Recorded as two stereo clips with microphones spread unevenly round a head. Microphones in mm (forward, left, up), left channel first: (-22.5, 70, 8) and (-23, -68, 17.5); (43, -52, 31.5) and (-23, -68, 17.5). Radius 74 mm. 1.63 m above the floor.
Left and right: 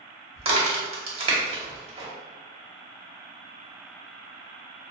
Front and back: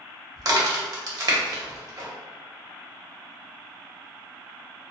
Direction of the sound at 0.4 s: 140° right.